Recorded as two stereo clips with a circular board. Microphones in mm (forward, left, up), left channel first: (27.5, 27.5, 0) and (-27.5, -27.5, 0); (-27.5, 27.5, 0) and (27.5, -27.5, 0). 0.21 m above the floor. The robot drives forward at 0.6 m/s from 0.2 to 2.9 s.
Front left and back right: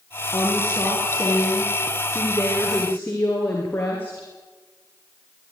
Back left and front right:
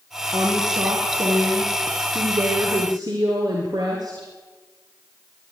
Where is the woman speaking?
10° right, 5.5 m; by 4.3 s 15° right, 4 m.